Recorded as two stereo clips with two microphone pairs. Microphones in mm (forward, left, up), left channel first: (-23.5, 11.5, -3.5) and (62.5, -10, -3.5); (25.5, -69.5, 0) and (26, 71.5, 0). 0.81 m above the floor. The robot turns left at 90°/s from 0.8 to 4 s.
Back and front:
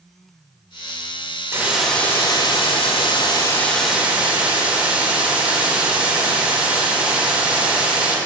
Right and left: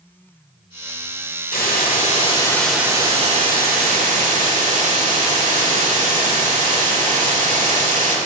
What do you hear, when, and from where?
1.5 s a hiss: 75° right, 1.7 m; by 8.2 s 65° left, 1.7 m